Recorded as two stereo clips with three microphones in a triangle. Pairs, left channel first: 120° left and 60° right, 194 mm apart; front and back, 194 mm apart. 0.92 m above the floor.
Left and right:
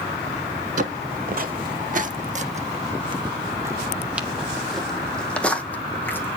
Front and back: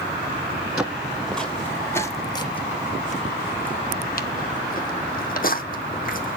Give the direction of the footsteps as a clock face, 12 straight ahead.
3 o'clock.